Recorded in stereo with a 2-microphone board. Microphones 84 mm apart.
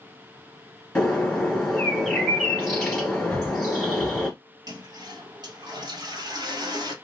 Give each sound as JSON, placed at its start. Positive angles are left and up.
{"t": 0.9, "sound": "a bird", "side_deg": 5, "distance_m": 1.5}
{"t": 3.3, "sound": "breathing", "side_deg": 20, "distance_m": 0.6}
{"t": 4.7, "sound": "a toilet flushing", "side_deg": -55, "distance_m": 1.4}